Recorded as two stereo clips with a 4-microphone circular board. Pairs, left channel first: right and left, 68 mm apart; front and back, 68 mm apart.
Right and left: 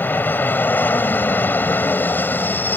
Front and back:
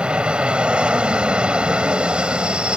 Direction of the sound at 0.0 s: 120° right.